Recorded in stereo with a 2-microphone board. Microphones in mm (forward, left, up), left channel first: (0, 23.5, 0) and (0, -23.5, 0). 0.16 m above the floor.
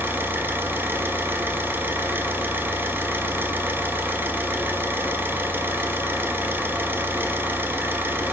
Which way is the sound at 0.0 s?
45° right (ahead or behind).